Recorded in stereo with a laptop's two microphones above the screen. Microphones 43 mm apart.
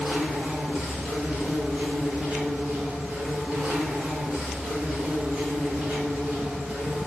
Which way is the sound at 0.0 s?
35° right (ahead or behind).